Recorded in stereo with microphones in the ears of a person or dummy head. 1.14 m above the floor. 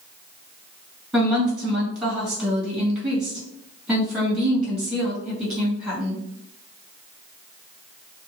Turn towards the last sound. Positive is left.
turn(degrees=-5)  # may be behind; listen again after turning